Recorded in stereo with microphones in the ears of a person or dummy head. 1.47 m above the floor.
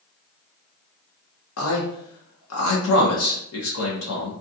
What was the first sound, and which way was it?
A man speaking, 85° left.